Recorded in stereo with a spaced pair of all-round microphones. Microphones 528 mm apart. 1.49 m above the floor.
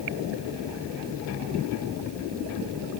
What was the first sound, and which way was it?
Only background noise.